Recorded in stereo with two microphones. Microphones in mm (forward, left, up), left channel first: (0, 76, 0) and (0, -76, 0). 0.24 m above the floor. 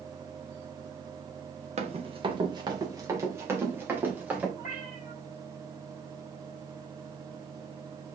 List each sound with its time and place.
1.8 s running footsteps: 45° right (ahead or behind), 1.9 m; by 4.5 s 10° right (ahead or behind), 4 m
4.6 s a cat meowing: 55° left (ahead or behind), 4.5 m